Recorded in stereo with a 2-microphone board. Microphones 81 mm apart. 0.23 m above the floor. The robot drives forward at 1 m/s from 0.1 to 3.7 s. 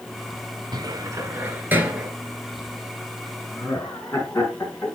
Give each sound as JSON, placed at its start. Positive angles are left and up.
{"t": 0.7, "sound": "a cupboard door", "side_deg": -55, "distance_m": 0.7}
{"t": 3.5, "sound": "laughter", "side_deg": 30, "distance_m": 3.0}